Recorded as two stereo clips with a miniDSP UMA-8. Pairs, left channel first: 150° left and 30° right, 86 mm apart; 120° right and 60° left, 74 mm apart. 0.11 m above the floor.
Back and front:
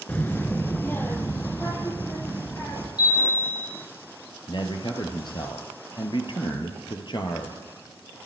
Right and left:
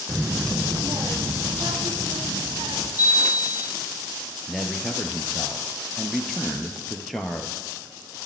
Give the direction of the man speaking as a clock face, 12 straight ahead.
7 o'clock.